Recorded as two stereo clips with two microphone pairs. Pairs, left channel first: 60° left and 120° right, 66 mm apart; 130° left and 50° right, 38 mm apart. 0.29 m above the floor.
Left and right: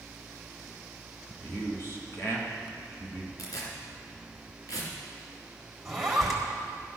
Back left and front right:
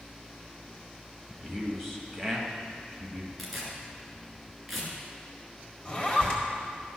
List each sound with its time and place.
1.4 s a man speaking: 45° left, 2 m
3.4 s tearing paper: 40° left, 2.5 m
5.8 s a zipper: 145° left, 1.6 m